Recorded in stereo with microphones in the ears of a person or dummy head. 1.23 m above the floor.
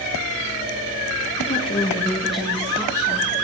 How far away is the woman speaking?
About 1.8 m.